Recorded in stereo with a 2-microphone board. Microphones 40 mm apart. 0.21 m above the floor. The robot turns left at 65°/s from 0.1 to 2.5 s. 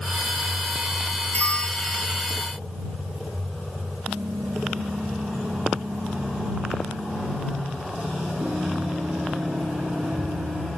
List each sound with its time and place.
1.3 s a bell: 40° left; by 2.4 s 25° right
4.1 s typing on a keyboard: 85° right